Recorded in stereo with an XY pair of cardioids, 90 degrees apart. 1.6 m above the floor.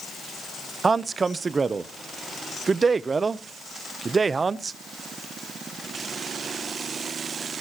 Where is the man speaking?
40° right, 0.7 m.